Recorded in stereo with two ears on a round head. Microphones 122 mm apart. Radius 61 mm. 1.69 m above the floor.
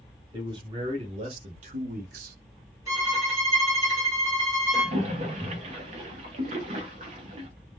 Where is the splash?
50° right (ahead or behind), 0.8 m.